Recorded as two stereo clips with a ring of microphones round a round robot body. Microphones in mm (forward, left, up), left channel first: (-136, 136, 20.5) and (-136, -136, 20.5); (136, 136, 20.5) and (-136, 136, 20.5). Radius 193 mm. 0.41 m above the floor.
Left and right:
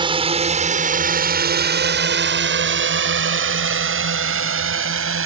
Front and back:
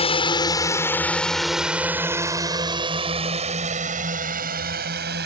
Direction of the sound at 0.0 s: 40° right.